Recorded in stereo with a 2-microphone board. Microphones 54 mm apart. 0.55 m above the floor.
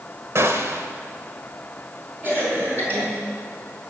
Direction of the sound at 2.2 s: 35° right (ahead or behind).